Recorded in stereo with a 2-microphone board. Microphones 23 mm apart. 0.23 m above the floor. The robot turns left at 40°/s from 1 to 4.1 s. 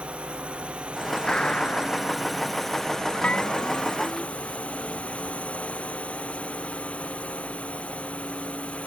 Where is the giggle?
No giggle in this recording.